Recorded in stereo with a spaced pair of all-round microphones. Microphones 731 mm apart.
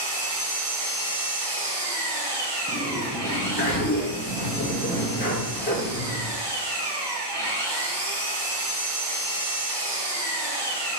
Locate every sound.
0.0 s an engine running: 35° right (ahead or behind), 0.8 m
2.7 s a sliding door: 15° left (ahead or behind), 0.9 m